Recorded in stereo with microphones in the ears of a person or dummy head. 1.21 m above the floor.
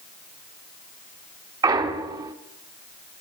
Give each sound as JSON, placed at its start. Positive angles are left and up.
{"t": 1.6, "sound": "a clunk", "side_deg": -25, "distance_m": 1.1}